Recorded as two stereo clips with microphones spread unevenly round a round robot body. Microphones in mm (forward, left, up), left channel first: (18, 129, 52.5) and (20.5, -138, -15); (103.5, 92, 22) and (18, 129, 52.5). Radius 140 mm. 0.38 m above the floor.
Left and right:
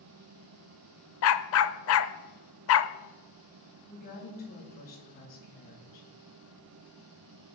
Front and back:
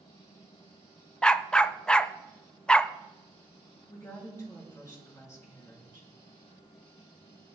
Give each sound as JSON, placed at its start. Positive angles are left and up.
{"t": 1.2, "sound": "a dog barking", "azimuth_deg": 50, "distance_m": 0.7}
{"t": 3.9, "sound": "a woman speaking", "azimuth_deg": 30, "distance_m": 6.5}